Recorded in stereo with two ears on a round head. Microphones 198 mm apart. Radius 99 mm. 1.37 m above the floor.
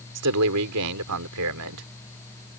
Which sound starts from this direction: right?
A man speaking, at 0.1 s.